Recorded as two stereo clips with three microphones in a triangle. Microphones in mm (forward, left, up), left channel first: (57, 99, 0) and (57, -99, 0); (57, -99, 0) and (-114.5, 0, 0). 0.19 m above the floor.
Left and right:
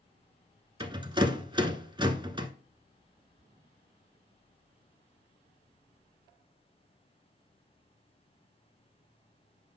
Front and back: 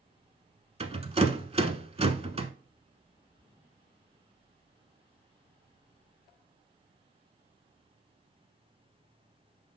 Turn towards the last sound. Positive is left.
turn(degrees=-150)